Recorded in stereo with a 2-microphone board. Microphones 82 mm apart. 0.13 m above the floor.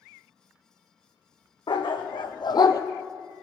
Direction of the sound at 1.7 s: 75° left (ahead or behind).